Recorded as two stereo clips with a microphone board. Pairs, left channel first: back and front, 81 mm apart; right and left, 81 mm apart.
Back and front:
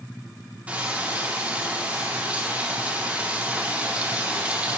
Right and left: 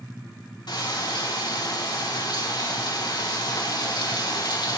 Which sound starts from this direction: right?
Frying, at 0.7 s.